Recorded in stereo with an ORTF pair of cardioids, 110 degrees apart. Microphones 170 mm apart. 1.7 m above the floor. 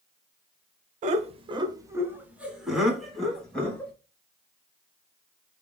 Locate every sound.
1.0 s laughter: 50° right, 0.8 m; by 3.9 s 10° left, 2 m